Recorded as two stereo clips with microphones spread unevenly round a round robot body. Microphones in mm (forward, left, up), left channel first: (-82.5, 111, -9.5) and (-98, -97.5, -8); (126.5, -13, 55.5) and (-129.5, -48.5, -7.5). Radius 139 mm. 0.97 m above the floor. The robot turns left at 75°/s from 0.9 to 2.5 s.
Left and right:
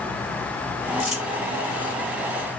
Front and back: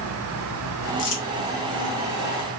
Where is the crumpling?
5° left, 1.1 m; by 1.2 s 10° right, 1.1 m.